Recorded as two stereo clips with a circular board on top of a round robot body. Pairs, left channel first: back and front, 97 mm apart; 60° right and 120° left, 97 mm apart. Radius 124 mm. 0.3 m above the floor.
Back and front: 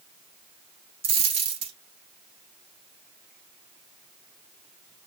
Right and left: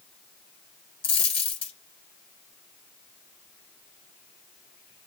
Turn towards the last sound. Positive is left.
turn(degrees=-25)